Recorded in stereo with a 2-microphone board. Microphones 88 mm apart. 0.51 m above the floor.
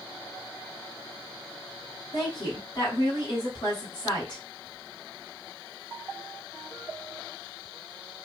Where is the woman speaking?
55° left (ahead or behind), 2.5 m.